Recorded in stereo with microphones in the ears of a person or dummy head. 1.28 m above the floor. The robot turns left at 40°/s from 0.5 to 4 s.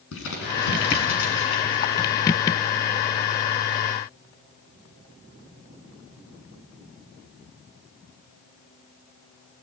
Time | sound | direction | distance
0.1 | crumpling | 75° left (ahead or behind) | 7.5 m